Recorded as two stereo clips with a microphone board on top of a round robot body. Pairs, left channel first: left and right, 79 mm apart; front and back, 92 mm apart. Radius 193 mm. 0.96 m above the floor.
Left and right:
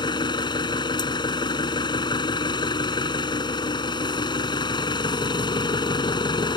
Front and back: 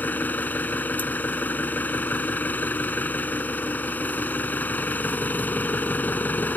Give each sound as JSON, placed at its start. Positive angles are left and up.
{"t": 0.0, "sound": "an engine running", "azimuth_deg": 70}